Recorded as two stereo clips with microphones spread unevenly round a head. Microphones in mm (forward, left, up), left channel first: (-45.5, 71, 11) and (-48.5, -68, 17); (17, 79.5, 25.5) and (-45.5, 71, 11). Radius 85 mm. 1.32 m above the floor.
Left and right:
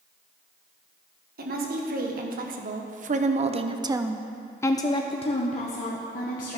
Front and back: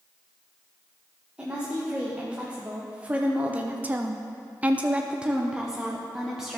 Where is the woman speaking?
95° right, 1.7 m; by 6.6 s 110° left, 1.4 m.